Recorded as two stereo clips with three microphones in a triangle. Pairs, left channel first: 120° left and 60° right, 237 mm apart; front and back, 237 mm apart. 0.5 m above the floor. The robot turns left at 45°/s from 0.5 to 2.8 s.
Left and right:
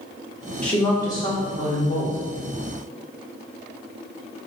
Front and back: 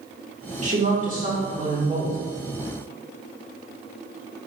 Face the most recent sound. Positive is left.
turn(degrees=105)